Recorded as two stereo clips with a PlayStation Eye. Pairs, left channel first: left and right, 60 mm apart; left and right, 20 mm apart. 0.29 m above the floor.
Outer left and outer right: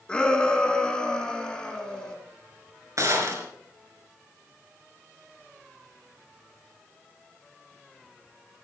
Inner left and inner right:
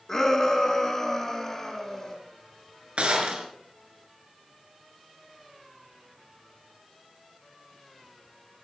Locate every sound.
0.1 s a shout: 15° left (ahead or behind), 3.5 m
3.0 s a gunshot: 60° right (ahead or behind), 3.5 m